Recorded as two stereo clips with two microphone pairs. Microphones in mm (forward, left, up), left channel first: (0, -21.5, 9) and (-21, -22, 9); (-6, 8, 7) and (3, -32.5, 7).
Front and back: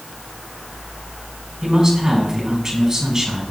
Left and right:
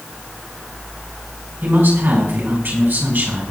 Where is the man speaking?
110° right, 5 m.